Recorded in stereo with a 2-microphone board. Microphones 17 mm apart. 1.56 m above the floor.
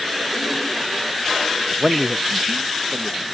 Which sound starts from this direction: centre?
A man speaking, at 1.7 s.